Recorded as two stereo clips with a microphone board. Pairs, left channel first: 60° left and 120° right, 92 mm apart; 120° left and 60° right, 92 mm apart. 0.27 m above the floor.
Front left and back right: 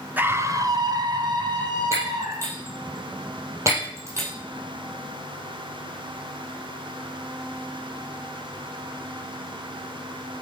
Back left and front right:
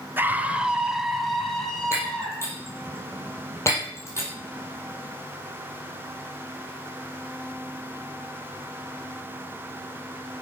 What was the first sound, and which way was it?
A scream, 85° right.